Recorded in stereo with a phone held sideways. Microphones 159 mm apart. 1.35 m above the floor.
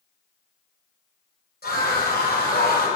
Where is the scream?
90° left, 5.5 m; by 2.9 s 85° left, 5 m.